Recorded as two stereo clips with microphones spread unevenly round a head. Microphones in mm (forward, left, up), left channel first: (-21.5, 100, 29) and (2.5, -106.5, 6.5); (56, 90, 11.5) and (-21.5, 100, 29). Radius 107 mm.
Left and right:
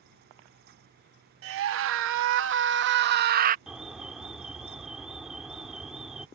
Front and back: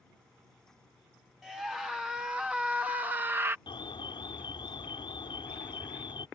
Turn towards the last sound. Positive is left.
turn(degrees=5)